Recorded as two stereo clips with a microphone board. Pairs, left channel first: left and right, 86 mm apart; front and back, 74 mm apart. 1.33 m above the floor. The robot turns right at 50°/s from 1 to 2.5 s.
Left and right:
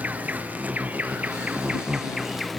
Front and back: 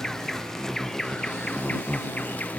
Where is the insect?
75° right; by 2.6 s straight ahead.